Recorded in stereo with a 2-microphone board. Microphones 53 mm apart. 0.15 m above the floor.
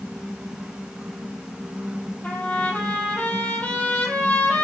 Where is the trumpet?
30° left (ahead or behind), 2 m.